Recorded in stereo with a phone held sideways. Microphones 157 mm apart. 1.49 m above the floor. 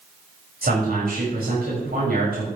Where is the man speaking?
75° right (ahead or behind), 7 m.